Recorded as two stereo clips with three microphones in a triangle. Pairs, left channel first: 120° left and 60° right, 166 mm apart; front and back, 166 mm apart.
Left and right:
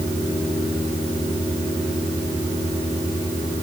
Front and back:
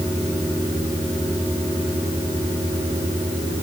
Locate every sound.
Only background noise.